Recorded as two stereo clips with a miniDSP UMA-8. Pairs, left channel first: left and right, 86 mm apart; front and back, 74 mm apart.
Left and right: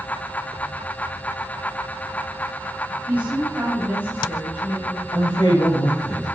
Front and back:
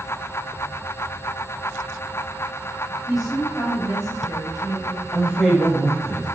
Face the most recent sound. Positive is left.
turn(degrees=85)